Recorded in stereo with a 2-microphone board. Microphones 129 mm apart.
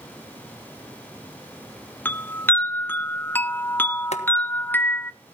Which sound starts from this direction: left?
Boiling, at 4.1 s.